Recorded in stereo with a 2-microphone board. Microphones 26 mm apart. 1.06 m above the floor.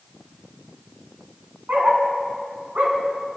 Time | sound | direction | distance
1.7 | a dog barking | 75° right (ahead or behind) | 4.5 m